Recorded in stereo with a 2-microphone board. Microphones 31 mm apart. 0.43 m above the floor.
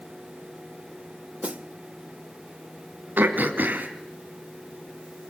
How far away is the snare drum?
About 0.7 m.